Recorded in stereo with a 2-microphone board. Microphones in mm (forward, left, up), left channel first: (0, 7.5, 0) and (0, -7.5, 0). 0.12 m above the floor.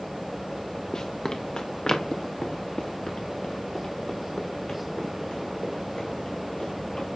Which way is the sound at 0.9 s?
60° left (ahead or behind).